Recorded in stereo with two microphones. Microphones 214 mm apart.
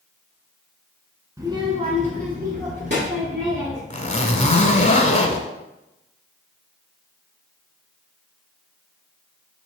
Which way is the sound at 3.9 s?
35° left (ahead or behind).